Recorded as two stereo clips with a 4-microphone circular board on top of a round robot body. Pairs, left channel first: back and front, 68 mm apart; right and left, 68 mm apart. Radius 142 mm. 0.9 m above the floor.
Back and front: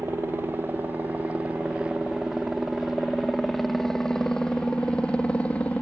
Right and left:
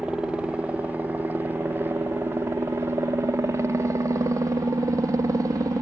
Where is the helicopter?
25° left; by 5.8 s 115° left.